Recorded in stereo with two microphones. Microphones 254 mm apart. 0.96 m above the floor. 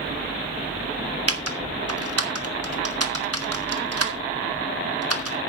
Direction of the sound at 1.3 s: 70° right (ahead or behind).